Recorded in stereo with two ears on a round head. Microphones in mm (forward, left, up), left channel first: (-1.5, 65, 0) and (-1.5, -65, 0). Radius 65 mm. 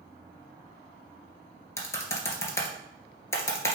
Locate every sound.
1.8 s typing on a keyboard: 20° left (ahead or behind), 1.3 m